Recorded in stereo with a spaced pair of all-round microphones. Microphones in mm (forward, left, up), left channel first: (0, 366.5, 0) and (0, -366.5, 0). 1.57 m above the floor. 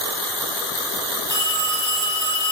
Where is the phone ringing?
40° left (ahead or behind), 3 m.